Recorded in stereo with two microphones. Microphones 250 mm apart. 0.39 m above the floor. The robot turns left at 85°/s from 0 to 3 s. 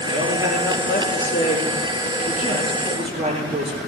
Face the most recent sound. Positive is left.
turn(degrees=-25)